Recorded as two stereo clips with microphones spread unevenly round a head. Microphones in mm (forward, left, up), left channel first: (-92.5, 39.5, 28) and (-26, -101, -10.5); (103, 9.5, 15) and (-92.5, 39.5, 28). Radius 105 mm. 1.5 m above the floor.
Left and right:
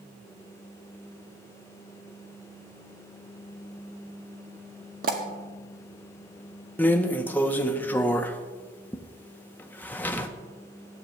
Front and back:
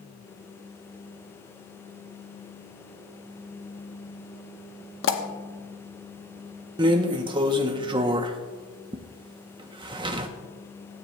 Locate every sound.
5.0 s a pop: 15° right, 1.0 m
6.8 s a drawer: 145° left, 0.6 m